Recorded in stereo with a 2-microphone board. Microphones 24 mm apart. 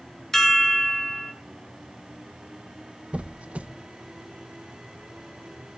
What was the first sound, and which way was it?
A chime, 20° left (ahead or behind).